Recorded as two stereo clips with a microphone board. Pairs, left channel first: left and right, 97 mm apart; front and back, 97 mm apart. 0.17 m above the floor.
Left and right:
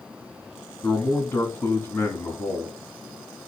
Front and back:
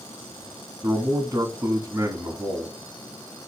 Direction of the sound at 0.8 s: 140° left.